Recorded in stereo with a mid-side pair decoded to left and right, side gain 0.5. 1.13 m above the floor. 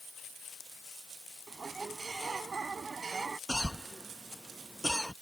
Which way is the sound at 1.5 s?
35° right.